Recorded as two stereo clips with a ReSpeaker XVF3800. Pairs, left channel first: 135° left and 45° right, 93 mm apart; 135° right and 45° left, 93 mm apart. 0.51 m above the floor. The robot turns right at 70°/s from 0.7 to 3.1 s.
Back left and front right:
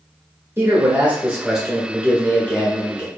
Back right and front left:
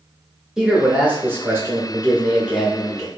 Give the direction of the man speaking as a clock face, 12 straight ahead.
1 o'clock.